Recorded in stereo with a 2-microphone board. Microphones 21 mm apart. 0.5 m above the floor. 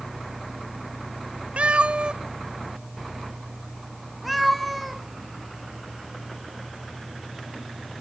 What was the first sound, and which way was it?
A cat meowing, 75° right (ahead or behind).